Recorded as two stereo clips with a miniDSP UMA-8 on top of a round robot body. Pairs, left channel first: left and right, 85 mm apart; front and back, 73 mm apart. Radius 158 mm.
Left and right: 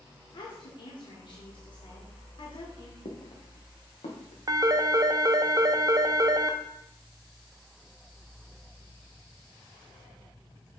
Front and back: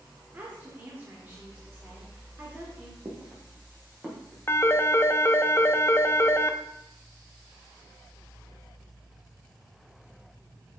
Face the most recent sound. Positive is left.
turn(degrees=-55)